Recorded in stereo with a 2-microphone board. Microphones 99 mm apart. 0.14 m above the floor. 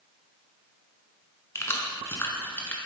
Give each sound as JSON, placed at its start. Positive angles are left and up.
{"t": 1.6, "sound": "keys jangling", "side_deg": 25, "distance_m": 1.0}